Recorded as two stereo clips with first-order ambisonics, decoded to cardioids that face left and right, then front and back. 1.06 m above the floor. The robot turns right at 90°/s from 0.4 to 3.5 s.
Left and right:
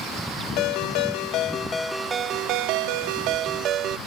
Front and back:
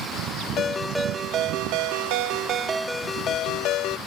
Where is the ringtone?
55° left; by 4.0 s 40° right.